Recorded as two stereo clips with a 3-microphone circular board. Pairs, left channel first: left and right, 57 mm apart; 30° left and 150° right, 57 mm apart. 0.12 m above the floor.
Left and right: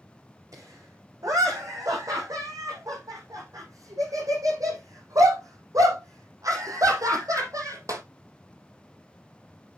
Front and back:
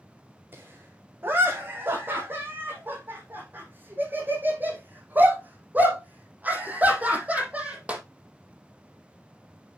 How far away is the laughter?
About 7 m.